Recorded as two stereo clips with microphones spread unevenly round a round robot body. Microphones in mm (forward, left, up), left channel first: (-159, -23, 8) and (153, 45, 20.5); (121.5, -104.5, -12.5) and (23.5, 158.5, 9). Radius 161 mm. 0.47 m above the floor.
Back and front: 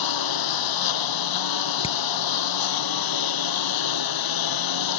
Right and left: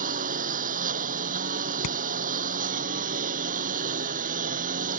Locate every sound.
0.0 s a lawn mower: 175° left
1.8 s hammering: 95° right